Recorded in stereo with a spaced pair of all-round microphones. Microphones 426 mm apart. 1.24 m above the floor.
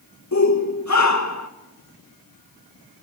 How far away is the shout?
About 1.6 m.